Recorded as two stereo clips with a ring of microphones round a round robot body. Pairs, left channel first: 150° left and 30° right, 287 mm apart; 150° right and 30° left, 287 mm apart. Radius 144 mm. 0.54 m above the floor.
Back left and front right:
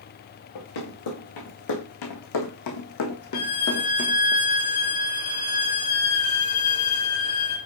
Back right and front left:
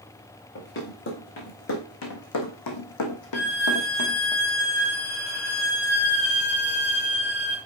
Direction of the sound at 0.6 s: 155° left.